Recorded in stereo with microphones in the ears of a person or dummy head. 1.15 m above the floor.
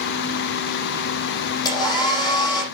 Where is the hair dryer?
25° left (ahead or behind), 6.5 m.